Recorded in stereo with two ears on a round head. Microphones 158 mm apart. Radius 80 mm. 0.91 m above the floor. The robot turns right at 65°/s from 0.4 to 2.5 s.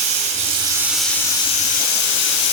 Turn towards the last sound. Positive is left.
turn(degrees=100)